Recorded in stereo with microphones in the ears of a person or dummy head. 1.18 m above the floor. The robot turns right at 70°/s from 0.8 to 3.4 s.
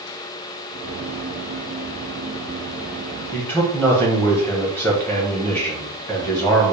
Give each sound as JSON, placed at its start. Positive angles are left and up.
{"t": 3.3, "sound": "a man speaking", "side_deg": 15, "distance_m": 1.1}